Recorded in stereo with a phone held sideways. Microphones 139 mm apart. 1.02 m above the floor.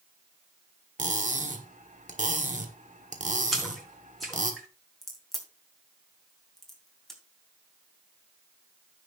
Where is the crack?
Centre (ahead or behind), 3 m.